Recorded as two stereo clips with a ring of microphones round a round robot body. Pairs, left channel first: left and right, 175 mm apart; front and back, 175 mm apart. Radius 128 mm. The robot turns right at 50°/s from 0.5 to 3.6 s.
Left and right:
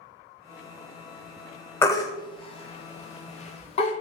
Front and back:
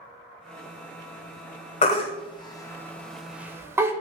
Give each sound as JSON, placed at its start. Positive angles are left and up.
{"t": 1.8, "sound": "a baby crying", "azimuth_deg": 20, "distance_m": 0.5}